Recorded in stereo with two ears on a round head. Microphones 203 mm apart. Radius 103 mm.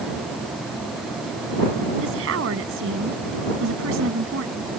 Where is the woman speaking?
60° right (ahead or behind).